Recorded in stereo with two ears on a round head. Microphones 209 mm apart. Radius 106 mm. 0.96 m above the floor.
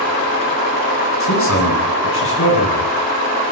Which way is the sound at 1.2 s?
65° left (ahead or behind).